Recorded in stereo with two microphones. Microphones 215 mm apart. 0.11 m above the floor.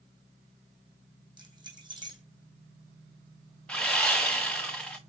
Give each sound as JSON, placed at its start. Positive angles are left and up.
{"t": 1.4, "sound": "keys jangling", "side_deg": -20, "distance_m": 3.5}
{"t": 3.7, "sound": "sawing", "side_deg": 5, "distance_m": 1.8}